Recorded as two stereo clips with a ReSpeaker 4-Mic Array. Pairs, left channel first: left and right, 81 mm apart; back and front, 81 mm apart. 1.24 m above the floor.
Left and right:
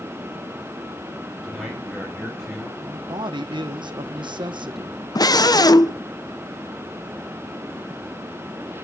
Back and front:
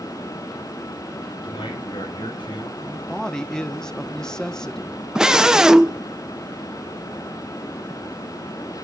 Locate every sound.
1.4 s a man speaking: straight behind, 5 m
2.8 s a man speaking: 95° right, 1.0 m
5.2 s a scream: 80° left, 0.8 m